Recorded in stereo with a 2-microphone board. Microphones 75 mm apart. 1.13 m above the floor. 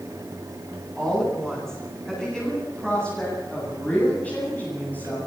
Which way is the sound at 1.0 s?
5° left (ahead or behind).